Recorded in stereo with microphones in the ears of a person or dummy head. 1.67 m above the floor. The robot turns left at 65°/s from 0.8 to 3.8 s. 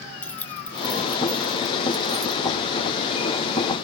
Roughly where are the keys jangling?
Centre.